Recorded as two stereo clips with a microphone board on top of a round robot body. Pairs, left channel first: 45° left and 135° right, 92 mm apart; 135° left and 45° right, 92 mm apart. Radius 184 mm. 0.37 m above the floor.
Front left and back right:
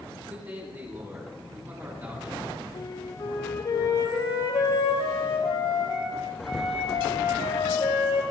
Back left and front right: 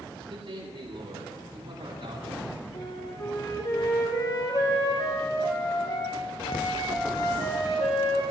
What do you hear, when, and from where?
0.3 s a man speaking: 70° right, 9 m
2.7 s a flute: 90° left, 5 m